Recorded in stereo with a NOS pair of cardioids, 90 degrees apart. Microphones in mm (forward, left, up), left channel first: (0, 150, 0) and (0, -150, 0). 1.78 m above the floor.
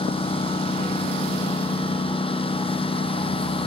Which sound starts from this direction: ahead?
A lawn mower, at 0.0 s.